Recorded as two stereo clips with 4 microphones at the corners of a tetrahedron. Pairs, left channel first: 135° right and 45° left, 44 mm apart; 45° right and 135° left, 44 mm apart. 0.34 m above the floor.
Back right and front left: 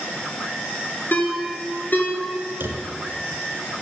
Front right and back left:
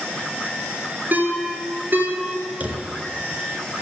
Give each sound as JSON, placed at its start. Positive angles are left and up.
{"t": 1.1, "sound": "a ringtone", "azimuth_deg": 180, "distance_m": 3.0}
{"t": 2.6, "sound": "a drawer", "azimuth_deg": 75, "distance_m": 1.6}